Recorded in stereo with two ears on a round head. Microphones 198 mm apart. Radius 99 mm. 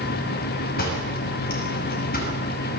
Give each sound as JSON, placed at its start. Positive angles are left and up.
{"t": 0.8, "sound": "a door slam", "side_deg": 45, "distance_m": 5.5}